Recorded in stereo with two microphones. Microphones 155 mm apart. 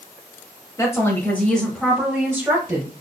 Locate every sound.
0.8 s a woman speaking: 20° left (ahead or behind), 1.3 m; by 2.9 s 20° right (ahead or behind), 1.4 m